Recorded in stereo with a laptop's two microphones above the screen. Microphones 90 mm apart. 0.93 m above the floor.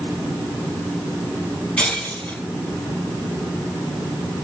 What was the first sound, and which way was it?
Breaking glass, 15° left (ahead or behind).